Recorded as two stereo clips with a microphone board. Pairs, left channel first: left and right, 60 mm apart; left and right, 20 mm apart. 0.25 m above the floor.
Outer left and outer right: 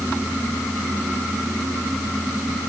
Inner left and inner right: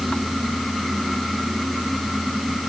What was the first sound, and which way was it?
Only background noise.